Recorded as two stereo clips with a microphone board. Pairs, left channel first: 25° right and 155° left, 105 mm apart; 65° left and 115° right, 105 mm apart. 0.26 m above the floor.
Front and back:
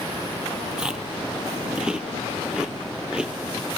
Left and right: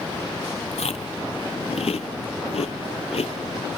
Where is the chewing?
75° left, 1.1 m.